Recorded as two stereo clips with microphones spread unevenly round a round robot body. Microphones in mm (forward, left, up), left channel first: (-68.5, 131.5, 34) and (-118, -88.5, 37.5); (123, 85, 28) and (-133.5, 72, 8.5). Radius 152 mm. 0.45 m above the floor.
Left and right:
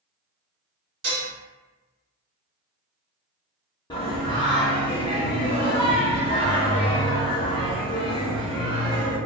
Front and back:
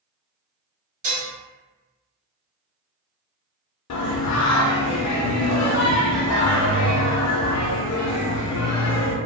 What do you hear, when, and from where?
1.0 s dishes clattering: 120° right, 1.3 m
3.9 s singing: 5° left, 0.5 m